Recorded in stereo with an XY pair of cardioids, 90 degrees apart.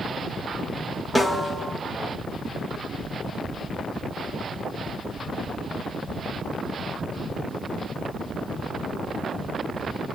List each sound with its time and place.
1.1 s a snare drum: 10° left, 5.5 m